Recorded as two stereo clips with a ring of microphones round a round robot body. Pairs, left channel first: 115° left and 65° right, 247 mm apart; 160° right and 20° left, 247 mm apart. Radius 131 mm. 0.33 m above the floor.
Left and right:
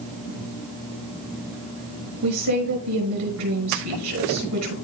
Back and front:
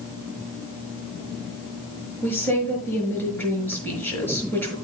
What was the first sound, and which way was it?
A woman speaking, 75° right.